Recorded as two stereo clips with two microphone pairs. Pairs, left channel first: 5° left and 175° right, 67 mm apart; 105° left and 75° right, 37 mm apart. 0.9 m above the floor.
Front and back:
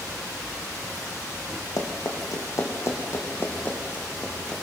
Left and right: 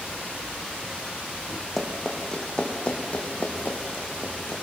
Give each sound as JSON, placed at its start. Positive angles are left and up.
{"t": 1.8, "sound": "running footsteps", "azimuth_deg": 20, "distance_m": 3.0}